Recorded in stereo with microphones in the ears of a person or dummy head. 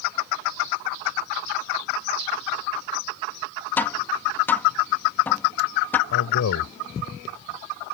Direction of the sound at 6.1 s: 60° left (ahead or behind).